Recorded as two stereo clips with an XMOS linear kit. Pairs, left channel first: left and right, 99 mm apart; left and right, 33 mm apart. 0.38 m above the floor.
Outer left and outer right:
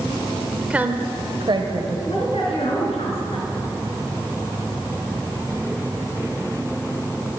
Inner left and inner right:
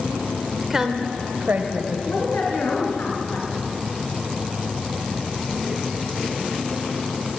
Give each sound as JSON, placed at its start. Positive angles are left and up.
{"t": 0.7, "sound": "a woman speaking", "side_deg": -10, "distance_m": 1.1}
{"t": 2.0, "sound": "a woman speaking", "side_deg": 80, "distance_m": 4.0}